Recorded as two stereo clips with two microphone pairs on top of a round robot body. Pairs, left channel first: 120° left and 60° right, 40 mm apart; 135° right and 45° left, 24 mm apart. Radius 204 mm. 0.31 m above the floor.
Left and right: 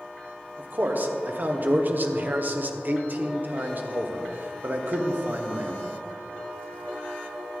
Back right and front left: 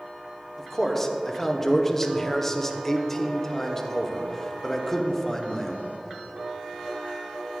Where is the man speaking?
60° right, 1.3 m.